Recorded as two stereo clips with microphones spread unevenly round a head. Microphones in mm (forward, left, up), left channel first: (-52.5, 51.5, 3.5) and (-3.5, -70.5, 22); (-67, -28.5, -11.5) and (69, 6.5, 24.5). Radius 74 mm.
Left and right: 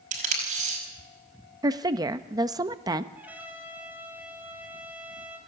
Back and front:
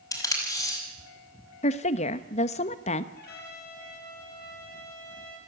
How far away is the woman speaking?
About 1.1 m.